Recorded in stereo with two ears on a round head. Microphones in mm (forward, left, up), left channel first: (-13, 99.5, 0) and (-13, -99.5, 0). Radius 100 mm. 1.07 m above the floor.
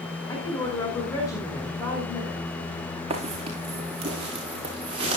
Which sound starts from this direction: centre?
A woman speaking, at 0.3 s.